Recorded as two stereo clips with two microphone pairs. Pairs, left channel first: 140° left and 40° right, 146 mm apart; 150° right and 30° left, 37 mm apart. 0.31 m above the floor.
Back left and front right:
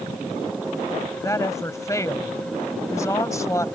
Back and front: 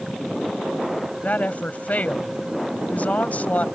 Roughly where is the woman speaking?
Behind.